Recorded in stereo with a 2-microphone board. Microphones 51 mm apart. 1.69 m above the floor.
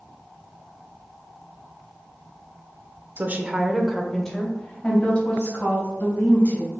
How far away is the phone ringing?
I don't hear a phone ringing.